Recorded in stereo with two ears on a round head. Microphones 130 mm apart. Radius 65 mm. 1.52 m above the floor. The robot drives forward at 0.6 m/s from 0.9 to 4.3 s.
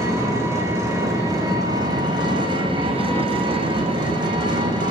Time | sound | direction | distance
0.0 | an engine running | 20° right (ahead or behind) | 1.8 m